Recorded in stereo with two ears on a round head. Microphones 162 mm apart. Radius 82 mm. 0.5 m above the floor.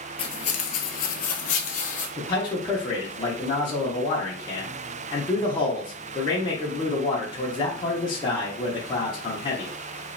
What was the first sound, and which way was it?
Footsteps, 30° left (ahead or behind).